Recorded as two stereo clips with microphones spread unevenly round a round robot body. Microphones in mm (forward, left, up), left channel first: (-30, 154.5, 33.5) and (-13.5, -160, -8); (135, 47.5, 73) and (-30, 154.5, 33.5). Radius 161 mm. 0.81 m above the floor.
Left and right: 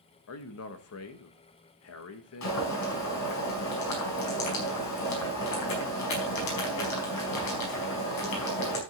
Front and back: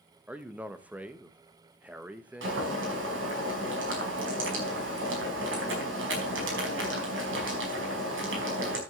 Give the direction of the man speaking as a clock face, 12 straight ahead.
9 o'clock.